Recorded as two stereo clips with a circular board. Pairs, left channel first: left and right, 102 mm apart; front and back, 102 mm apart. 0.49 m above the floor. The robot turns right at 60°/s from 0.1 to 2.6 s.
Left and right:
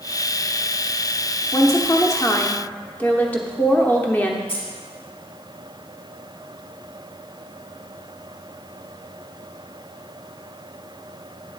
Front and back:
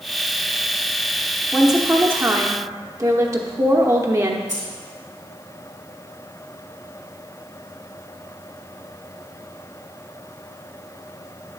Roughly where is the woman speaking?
Left.